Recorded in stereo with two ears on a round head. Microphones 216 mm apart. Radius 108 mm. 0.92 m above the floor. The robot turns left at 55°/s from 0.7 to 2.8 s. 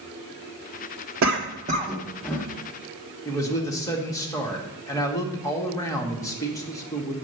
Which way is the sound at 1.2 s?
55° right (ahead or behind).